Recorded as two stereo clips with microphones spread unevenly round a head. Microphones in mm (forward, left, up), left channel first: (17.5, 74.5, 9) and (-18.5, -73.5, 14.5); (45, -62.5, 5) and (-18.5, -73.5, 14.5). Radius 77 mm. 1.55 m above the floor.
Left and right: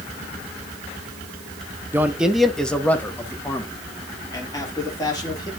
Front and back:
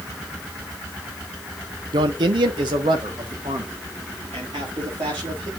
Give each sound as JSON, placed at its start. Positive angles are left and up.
{"t": 1.9, "sound": "a man speaking", "azimuth_deg": 180, "distance_m": 0.9}